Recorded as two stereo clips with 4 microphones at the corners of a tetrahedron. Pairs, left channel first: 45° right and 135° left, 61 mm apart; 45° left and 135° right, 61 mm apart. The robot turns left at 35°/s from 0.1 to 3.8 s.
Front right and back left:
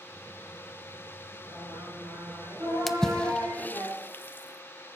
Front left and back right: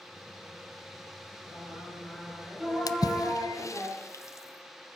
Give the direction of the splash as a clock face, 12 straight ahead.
11 o'clock.